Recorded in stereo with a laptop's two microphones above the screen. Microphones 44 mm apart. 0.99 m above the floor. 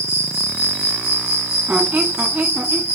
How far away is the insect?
About 1.5 m.